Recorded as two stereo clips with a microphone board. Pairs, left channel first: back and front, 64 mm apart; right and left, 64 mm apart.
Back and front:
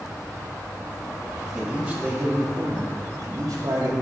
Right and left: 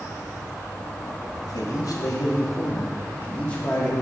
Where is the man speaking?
80° right, 1.9 m; by 4.0 s 10° right, 2.5 m.